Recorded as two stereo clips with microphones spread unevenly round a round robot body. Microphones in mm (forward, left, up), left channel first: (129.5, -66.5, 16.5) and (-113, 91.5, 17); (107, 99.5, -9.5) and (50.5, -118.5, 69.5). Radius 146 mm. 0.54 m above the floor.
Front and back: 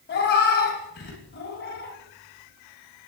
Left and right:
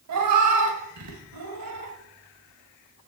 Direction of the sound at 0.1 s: 90° right.